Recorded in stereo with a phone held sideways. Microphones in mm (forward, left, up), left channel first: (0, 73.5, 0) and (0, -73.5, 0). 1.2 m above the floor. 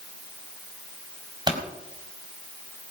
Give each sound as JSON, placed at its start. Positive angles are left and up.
{"t": 1.5, "sound": "a pop", "side_deg": -30, "distance_m": 4.5}